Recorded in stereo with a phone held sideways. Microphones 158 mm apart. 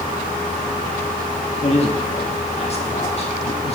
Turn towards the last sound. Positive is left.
turn(degrees=40)  # may be behind; listen again after turning